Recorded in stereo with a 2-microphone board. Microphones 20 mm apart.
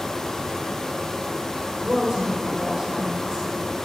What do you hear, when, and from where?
1.8 s a woman speaking: 30° right (ahead or behind), 3 m